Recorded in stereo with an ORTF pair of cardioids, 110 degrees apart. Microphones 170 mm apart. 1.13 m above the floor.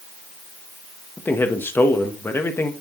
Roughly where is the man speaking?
Ahead.